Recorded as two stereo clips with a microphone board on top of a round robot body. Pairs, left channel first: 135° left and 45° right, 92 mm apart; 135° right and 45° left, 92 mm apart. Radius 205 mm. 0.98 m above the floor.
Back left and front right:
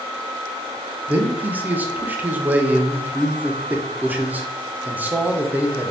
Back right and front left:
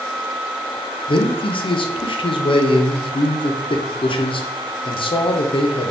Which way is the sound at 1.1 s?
115° right.